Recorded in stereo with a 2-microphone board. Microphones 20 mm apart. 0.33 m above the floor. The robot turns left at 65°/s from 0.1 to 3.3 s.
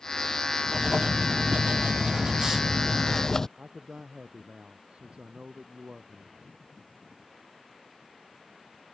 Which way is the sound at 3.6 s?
70° right (ahead or behind).